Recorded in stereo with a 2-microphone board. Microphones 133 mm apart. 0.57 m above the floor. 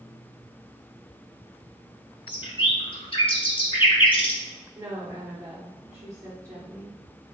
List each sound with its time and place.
2.3 s a bird: 40° left (ahead or behind), 0.6 m
4.8 s a woman speaking: 25° right (ahead or behind), 1.0 m